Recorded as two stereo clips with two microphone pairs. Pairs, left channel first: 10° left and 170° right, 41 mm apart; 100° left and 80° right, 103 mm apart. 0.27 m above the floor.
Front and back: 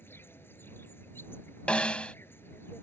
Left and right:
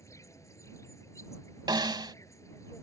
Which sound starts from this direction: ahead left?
An insect, at 0.0 s.